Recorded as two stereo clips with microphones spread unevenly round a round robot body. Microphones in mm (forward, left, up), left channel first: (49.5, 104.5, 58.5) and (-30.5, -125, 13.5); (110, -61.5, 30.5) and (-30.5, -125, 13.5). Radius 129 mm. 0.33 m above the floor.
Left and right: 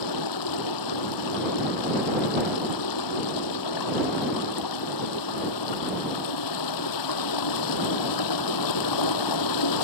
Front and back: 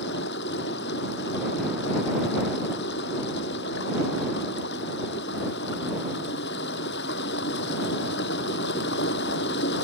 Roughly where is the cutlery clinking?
No cutlery clinking in this recording.